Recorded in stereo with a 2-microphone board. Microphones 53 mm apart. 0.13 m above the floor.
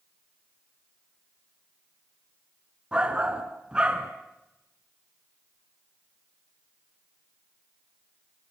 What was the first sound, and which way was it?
A shout, 20° right (ahead or behind).